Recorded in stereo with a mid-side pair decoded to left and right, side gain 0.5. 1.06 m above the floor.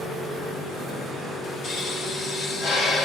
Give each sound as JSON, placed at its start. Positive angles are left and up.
{"t": 1.6, "sound": "a pop", "azimuth_deg": 65, "distance_m": 1.7}